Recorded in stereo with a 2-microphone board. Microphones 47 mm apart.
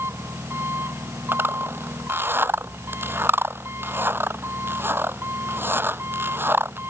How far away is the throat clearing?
No throat clearing in this recording.